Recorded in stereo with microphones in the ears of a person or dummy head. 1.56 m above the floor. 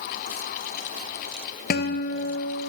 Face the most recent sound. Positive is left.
turn(degrees=45)  # may be behind; listen again after turning